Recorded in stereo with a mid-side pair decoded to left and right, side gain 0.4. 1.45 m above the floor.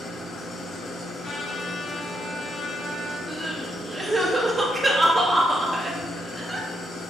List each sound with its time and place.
0.0 s an engine running: 60° left, 1.0 m
1.2 s a trumpet: 45° left, 1.3 m
3.3 s crying: 25° right, 0.9 m